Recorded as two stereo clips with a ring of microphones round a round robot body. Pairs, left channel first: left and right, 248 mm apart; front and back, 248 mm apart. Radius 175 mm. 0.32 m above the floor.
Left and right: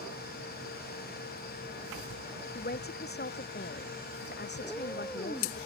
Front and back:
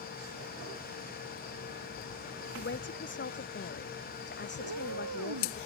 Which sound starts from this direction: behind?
A cat meowing, at 4.6 s.